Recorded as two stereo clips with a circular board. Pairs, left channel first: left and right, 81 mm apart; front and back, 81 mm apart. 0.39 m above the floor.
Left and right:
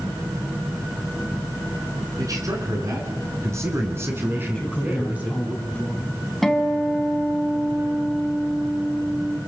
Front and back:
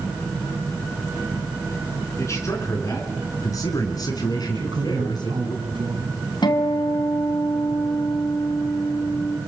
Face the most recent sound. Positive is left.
turn(degrees=5)